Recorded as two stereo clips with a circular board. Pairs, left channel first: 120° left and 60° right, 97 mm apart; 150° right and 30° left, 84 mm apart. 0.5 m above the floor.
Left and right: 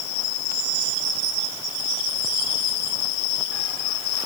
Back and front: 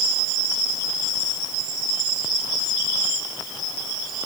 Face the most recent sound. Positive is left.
No sound to turn to.